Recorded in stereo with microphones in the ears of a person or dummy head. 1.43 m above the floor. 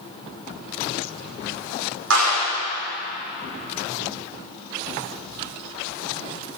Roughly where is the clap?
Right.